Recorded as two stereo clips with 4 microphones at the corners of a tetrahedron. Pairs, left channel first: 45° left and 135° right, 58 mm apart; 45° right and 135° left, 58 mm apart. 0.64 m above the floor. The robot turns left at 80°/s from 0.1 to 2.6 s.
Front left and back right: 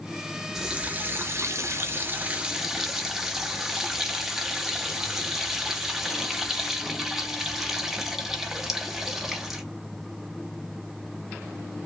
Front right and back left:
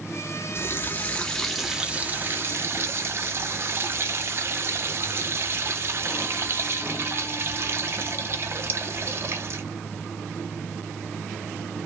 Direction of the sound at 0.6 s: 50° right.